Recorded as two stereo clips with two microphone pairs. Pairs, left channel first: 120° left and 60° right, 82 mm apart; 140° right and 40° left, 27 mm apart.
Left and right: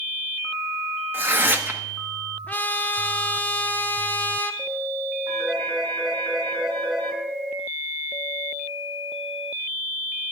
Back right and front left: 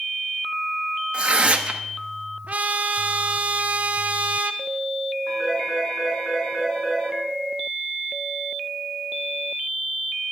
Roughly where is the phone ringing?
Right.